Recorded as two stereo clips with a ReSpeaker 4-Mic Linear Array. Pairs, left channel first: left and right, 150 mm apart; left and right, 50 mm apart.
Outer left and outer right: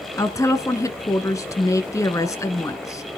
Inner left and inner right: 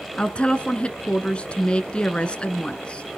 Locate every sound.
0.2 s a woman speaking: 20° left (ahead or behind), 1.1 m